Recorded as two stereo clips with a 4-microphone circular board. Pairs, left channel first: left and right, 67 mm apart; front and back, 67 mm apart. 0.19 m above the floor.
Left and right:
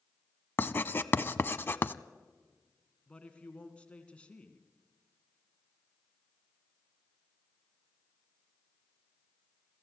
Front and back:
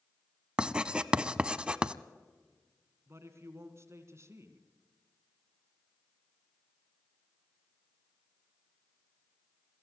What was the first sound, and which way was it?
Writing, 115° left.